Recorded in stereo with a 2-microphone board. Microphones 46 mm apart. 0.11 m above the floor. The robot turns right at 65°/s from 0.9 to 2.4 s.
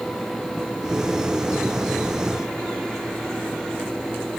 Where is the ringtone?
I don't hear a ringtone.